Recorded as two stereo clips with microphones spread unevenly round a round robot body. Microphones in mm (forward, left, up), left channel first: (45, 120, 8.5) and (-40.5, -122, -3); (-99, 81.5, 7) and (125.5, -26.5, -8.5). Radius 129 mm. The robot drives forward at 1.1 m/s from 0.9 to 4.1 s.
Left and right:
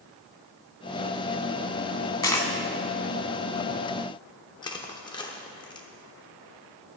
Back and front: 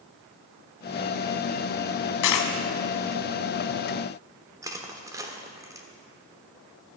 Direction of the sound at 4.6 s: 20° left.